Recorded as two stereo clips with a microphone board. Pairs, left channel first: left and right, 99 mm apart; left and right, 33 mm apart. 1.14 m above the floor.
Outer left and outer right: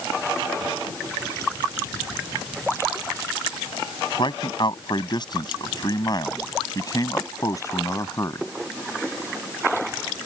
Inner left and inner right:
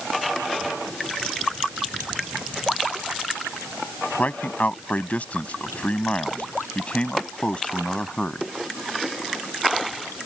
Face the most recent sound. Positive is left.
turn(degrees=30)  # may be behind; listen again after turning